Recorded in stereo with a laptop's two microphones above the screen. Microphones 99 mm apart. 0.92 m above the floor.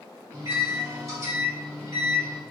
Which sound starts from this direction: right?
A microwave, at 0.3 s.